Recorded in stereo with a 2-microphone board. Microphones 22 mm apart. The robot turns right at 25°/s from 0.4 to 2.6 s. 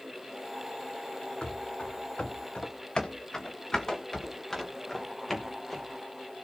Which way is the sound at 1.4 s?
40° left (ahead or behind).